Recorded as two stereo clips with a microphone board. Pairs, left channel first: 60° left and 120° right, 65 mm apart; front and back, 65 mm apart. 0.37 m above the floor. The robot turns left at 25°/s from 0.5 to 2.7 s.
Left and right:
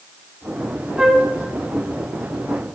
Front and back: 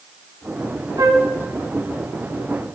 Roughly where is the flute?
Behind.